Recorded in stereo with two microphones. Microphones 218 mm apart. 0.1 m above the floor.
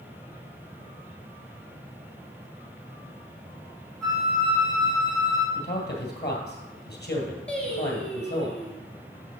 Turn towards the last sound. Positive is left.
turn(degrees=5)  # may be behind; listen again after turning